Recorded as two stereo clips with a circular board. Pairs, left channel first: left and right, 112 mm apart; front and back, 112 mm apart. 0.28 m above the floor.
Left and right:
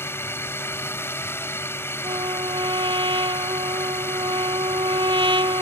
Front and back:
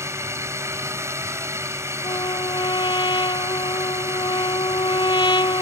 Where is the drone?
140° left.